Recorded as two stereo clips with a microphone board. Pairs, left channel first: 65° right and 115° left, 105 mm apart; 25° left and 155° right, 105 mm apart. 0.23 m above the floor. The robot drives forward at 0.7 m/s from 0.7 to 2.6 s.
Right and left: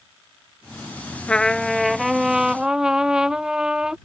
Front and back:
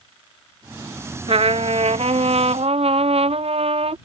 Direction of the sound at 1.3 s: 145° right.